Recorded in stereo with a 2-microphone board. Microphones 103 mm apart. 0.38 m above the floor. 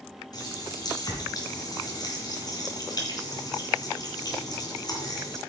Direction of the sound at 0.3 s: 40° left (ahead or behind).